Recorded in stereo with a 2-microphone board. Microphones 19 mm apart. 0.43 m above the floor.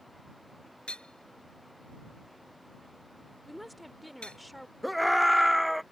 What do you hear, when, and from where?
0.9 s hammering: 60° left (ahead or behind)
3.5 s a woman speaking: centre (ahead or behind)
4.8 s a scream: 5° right (ahead or behind)